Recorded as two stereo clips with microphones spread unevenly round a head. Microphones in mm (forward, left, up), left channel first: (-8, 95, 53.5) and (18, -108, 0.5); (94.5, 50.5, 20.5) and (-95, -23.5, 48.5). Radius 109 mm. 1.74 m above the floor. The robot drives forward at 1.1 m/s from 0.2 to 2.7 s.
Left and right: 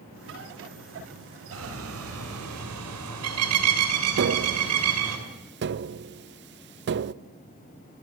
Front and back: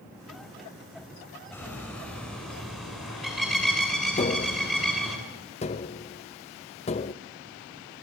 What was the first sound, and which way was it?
A bird, 60° right.